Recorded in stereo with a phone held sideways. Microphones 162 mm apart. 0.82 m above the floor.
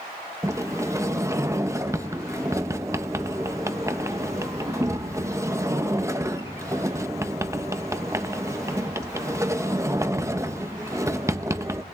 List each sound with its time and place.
0.4 s a sliding door: 20° right (ahead or behind), 0.9 m